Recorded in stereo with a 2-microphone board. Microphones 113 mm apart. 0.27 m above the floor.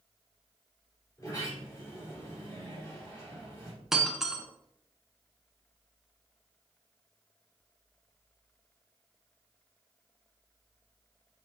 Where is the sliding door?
30° left (ahead or behind), 3.5 m.